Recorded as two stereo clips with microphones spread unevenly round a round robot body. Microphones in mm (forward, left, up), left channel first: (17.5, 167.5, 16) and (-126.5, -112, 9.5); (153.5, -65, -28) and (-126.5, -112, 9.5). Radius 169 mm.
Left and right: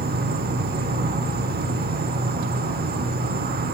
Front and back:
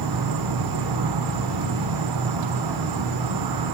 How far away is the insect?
About 0.8 m.